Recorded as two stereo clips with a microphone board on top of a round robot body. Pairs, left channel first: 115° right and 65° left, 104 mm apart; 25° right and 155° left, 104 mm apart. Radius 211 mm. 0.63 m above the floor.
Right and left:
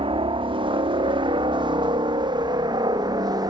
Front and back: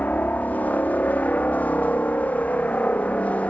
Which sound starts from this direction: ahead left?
A helicopter, at 0.0 s.